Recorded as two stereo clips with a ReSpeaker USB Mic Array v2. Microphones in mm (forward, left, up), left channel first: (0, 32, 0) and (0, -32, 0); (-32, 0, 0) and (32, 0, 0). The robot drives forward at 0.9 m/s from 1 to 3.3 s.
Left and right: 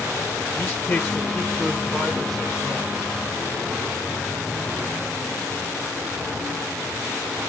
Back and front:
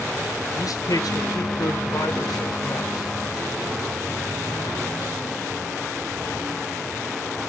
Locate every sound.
0.6 s a man speaking: 150° left, 0.6 m; by 3.1 s 175° left, 2.5 m